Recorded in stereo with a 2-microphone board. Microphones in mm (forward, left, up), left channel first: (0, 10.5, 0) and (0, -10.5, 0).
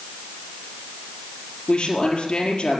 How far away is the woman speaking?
About 5 m.